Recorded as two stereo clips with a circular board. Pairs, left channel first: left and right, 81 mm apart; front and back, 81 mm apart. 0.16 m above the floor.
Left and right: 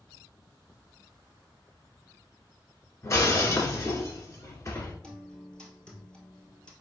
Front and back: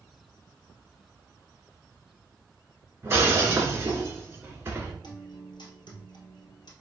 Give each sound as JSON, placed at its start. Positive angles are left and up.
{"t": 3.0, "sound": "breaking glass", "azimuth_deg": 130, "distance_m": 1.2}
{"t": 5.0, "sound": "a guitar", "azimuth_deg": 10, "distance_m": 1.3}